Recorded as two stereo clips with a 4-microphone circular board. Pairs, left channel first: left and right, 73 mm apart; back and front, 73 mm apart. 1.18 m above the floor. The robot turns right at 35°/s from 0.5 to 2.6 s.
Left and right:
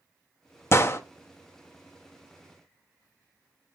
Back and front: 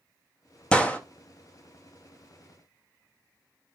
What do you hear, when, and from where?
0.7 s a gunshot: 115° left, 0.6 m; by 1.0 s 125° left, 0.6 m